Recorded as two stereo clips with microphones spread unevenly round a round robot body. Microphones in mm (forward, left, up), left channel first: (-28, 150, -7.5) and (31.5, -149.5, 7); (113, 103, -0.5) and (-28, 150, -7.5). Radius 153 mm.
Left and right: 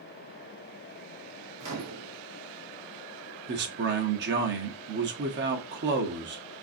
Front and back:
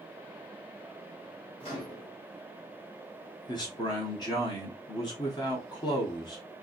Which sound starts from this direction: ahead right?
A man speaking, at 3.5 s.